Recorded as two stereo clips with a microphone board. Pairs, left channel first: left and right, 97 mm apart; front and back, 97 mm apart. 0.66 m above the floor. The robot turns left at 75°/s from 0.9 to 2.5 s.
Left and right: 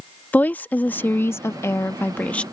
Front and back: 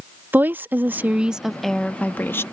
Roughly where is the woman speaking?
Behind left.